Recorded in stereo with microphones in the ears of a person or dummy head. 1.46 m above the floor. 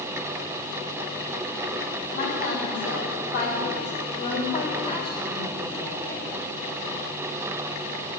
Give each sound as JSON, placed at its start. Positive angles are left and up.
{"t": 2.1, "sound": "a woman speaking", "side_deg": 50, "distance_m": 4.0}